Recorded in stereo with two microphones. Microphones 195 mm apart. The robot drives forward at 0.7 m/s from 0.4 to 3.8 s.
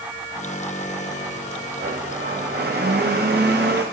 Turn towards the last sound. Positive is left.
turn(degrees=-60)  # may be behind; listen again after turning